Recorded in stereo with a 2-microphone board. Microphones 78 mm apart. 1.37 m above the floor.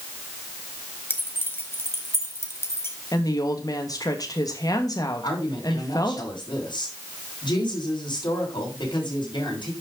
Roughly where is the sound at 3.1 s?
Left.